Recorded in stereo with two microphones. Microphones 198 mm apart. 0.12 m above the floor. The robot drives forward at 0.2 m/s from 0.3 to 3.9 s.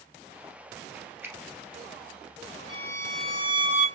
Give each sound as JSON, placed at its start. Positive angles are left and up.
{"t": 1.2, "sound": "a finger snap", "side_deg": -10, "distance_m": 1.3}
{"t": 2.7, "sound": "a violin", "side_deg": -30, "distance_m": 0.9}